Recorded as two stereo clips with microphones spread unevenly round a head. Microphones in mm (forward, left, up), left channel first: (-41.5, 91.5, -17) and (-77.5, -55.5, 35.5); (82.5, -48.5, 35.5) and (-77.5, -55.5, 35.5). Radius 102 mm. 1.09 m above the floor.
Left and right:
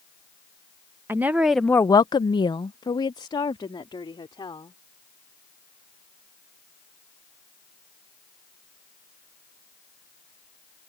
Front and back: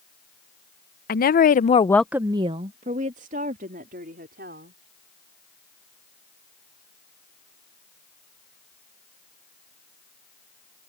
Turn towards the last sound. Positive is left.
turn(degrees=140)